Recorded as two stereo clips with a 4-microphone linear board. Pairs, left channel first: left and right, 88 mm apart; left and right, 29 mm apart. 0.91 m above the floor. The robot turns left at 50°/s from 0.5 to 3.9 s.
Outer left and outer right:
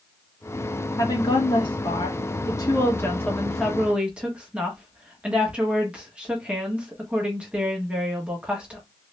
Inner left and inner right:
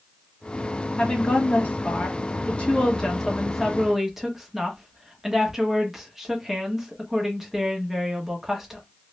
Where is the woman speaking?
130° left, 1.2 m; by 8.8 s 15° right, 1.2 m.